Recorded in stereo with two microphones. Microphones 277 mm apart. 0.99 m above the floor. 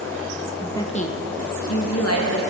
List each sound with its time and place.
0.6 s a woman speaking: centre (ahead or behind), 0.6 m; by 2.4 s 65° left (ahead or behind), 1.5 m